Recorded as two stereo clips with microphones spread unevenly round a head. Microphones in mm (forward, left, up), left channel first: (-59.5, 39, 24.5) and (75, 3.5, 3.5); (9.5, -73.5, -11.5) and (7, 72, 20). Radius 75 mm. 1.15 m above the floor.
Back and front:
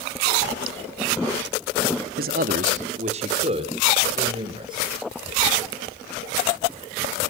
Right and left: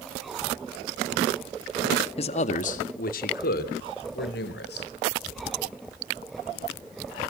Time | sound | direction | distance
2.2 | a man speaking | 40° right | 1.8 m